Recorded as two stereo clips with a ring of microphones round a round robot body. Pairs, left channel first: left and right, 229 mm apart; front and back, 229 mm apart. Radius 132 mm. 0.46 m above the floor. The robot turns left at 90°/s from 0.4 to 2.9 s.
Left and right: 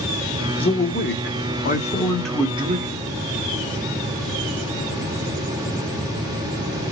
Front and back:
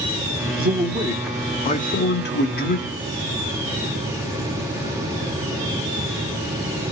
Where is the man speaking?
150° left, 1.5 m; by 3.0 s 55° right, 1.5 m.